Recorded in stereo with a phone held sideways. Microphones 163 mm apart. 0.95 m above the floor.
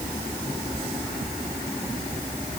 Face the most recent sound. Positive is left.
No sound to turn to.